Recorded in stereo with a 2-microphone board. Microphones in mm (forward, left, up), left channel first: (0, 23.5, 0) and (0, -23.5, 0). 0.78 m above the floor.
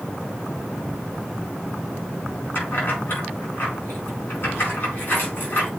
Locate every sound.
2.5 s keys jangling: 45° left (ahead or behind), 5 m